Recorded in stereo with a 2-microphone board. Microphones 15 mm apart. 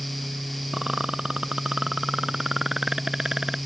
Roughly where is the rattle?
Right.